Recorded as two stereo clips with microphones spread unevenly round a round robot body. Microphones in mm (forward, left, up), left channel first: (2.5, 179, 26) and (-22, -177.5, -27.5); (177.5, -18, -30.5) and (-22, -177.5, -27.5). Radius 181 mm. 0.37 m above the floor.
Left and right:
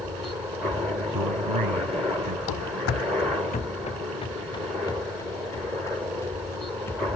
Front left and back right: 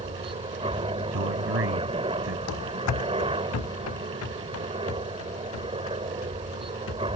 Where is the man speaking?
120° right.